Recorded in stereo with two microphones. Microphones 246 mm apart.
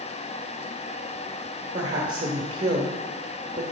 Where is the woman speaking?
30° right (ahead or behind), 1.2 m.